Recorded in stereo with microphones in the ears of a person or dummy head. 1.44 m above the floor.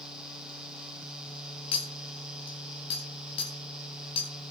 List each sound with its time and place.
1.7 s a clink: 30° left (ahead or behind), 1.4 m